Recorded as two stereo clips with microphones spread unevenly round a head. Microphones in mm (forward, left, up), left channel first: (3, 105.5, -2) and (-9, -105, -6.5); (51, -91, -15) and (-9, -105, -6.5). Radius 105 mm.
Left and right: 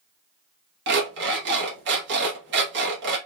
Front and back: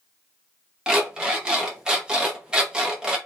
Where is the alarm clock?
100° right, 1.0 m.